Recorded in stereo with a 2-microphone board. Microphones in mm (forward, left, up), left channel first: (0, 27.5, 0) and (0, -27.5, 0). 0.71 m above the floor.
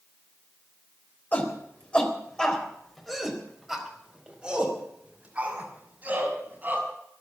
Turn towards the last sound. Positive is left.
turn(degrees=-30)  # may be behind; listen again after turning